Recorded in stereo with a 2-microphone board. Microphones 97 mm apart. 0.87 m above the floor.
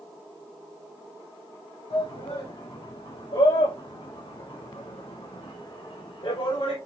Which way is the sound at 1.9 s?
65° left (ahead or behind).